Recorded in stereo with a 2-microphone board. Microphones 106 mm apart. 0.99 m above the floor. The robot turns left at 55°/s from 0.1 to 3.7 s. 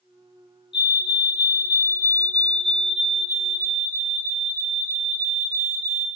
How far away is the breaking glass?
No breaking glass in this recording.